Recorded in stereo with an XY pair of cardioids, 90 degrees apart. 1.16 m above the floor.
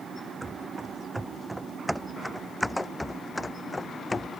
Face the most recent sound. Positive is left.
turn(degrees=35)